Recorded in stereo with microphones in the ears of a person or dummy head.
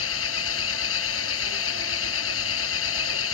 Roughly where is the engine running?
Left.